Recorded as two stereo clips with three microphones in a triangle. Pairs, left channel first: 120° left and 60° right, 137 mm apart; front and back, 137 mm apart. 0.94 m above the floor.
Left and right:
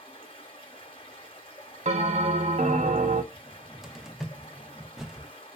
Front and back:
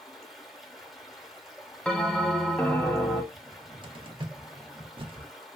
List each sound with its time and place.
0.0 s running water: 90° left, 0.9 m
1.9 s a bell: 80° right, 0.6 m
3.3 s a cupboard door: 145° right, 0.5 m